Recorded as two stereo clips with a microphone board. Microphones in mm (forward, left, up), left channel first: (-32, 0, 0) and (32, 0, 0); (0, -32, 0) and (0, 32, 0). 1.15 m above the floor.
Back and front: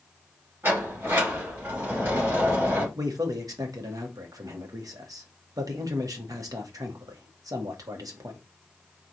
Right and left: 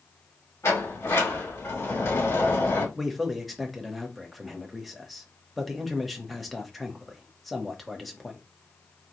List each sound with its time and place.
0.6 s a sliding door: 50° right, 2.5 m
3.0 s a man speaking: straight ahead, 1.0 m